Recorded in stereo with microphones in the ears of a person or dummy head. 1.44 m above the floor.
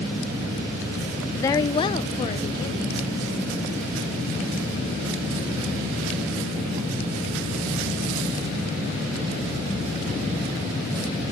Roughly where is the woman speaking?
Centre.